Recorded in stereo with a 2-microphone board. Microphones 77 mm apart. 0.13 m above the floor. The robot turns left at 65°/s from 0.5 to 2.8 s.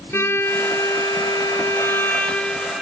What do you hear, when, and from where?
0.1 s a violin: 140° left, 2.5 m; by 2.8 s 10° right, 2.5 m